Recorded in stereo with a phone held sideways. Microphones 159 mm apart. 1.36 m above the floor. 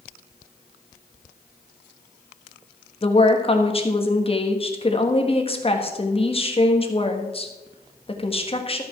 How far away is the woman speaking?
About 1.5 m.